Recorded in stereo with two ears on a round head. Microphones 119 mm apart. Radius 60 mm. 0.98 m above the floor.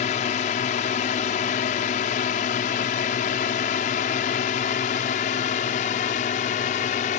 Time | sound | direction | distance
0.0 | a drone | 55° left (ahead or behind) | ?